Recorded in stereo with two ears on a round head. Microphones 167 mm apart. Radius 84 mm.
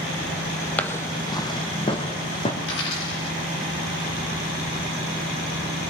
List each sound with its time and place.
0.8 s footsteps: 10° left (ahead or behind), 1.1 m; by 2.5 s 30° left (ahead or behind), 3.5 m
2.6 s a dropped coin: 75° left (ahead or behind), 7 m